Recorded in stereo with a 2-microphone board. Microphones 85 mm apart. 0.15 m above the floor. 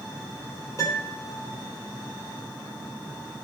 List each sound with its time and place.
0.8 s a piano: 40° left (ahead or behind), 4 m